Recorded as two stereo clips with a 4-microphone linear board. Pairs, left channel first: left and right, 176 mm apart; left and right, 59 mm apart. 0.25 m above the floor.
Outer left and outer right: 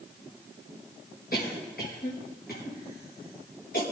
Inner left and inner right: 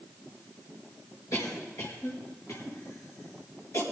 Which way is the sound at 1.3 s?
60° left (ahead or behind).